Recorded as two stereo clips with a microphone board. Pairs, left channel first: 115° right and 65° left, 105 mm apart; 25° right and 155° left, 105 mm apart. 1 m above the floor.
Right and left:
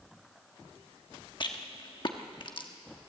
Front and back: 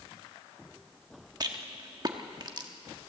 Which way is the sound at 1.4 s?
155° right.